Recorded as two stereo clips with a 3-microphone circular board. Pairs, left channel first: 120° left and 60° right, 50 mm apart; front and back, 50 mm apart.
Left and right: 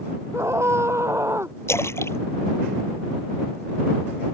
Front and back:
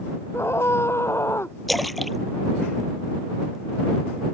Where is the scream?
30° right.